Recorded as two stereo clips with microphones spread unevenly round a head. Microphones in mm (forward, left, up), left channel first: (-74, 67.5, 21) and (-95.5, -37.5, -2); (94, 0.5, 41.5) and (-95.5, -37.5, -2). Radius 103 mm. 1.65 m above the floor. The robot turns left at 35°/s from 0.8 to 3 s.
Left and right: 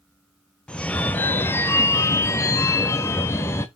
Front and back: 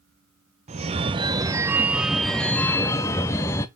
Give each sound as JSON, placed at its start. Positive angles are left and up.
{"t": 0.7, "sound": "a phone ringing", "azimuth_deg": 130, "distance_m": 0.7}